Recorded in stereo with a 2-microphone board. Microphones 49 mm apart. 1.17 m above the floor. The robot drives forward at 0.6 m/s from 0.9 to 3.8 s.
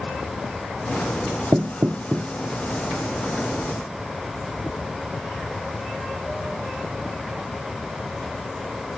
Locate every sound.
1.5 s knocking: 60° right (ahead or behind); by 2.3 s 65° right (ahead or behind)